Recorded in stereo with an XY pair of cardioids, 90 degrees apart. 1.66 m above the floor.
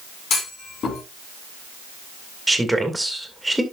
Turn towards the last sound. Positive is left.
turn(degrees=-10)